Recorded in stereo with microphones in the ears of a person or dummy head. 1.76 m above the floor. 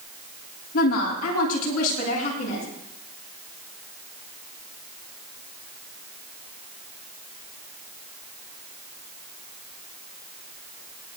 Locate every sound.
0.7 s a woman speaking: 50° left (ahead or behind), 3 m; by 2.6 s 40° left (ahead or behind), 4 m